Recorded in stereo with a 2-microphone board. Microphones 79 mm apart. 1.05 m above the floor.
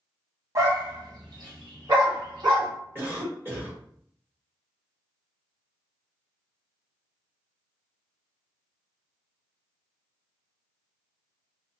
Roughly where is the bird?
I don't hear a bird.